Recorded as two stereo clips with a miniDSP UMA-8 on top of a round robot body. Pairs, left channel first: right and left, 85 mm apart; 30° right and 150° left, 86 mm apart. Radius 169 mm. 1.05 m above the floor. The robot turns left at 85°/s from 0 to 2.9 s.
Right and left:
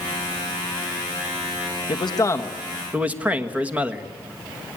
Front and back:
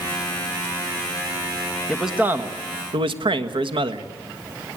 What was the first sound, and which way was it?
A man speaking, 110° right.